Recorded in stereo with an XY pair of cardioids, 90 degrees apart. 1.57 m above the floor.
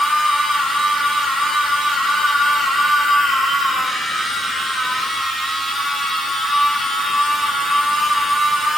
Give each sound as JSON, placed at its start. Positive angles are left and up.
{"t": 0.0, "sound": "a machine running", "azimuth_deg": 10, "distance_m": 1.1}